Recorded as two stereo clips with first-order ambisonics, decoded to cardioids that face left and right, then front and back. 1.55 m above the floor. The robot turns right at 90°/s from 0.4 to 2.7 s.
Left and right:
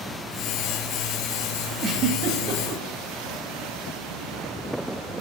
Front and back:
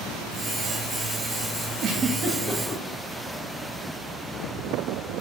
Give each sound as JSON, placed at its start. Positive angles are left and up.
{"t": 1.8, "sound": "a giggle", "azimuth_deg": -155, "distance_m": 1.2}